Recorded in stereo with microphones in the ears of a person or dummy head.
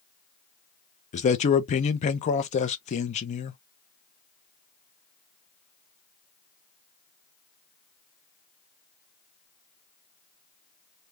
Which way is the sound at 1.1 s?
40° left (ahead or behind).